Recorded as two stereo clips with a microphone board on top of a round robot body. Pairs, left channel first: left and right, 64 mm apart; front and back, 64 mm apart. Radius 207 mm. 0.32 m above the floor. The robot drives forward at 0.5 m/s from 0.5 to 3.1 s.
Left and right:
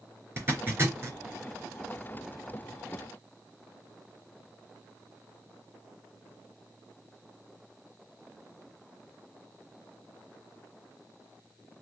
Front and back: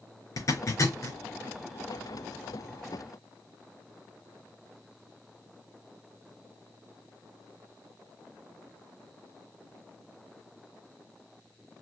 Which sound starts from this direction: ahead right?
A zipper, at 0.4 s.